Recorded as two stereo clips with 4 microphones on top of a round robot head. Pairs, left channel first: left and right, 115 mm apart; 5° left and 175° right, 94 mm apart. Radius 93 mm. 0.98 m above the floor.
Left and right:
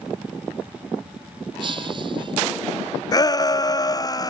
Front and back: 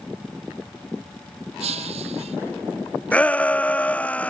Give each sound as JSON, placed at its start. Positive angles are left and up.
{"t": 1.6, "sound": "breaking glass", "azimuth_deg": -150}
{"t": 3.1, "sound": "a shout", "azimuth_deg": 70}